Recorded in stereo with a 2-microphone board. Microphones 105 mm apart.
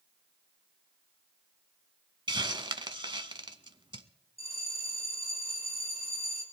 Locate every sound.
2.3 s a hiss: 50° right (ahead or behind), 0.7 m
4.4 s a bell: 75° left (ahead or behind), 3.5 m